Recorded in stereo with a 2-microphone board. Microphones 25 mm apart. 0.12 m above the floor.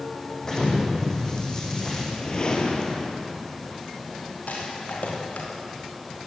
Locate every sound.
0.4 s an explosion: 25° left (ahead or behind), 7 m
2.0 s a whoosh: 35° left (ahead or behind), 3.5 m
4.5 s a rattle: 70° left (ahead or behind), 7.5 m